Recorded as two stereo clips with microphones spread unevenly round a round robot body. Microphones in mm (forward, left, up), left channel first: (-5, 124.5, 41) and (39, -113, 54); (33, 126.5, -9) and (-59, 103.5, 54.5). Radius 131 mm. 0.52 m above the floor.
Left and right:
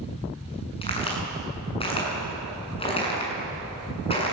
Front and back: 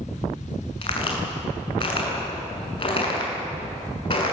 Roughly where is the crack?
Ahead left.